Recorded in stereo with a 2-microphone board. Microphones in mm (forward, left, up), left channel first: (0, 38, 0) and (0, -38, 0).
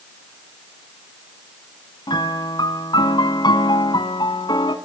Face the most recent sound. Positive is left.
turn(degrees=80)